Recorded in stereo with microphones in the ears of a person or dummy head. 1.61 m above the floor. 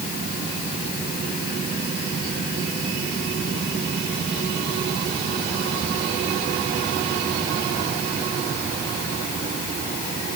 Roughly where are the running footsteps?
No running footsteps in this recording.